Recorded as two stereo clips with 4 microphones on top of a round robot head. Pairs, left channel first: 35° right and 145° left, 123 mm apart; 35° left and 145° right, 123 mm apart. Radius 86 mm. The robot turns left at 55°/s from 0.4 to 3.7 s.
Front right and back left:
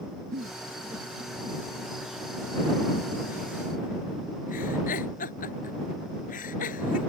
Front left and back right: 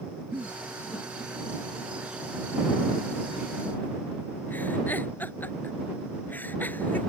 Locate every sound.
0.3 s a giggle: 140° left; by 7.1 s 45° right